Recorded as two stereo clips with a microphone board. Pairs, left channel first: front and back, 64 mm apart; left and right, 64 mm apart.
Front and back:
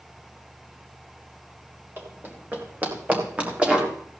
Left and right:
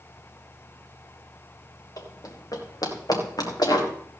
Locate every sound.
2.0 s running footsteps: 120° left, 4.5 m; by 3.9 s 105° left, 4 m